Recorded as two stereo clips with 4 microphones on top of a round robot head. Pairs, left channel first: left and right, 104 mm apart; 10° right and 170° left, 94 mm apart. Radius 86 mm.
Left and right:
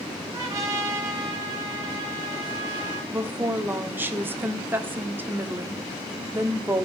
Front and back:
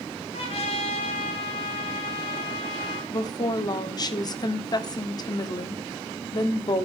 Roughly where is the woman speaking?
Ahead right.